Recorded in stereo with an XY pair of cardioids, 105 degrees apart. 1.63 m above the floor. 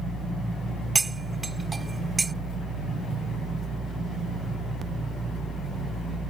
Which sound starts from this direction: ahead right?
Cutlery clinking, at 0.9 s.